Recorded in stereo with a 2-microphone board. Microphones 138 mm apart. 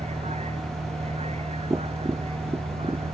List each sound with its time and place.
0.0 s a vehicle: 50° right (ahead or behind); by 3.1 s 45° right (ahead or behind)
1.7 s tapping: 25° right (ahead or behind)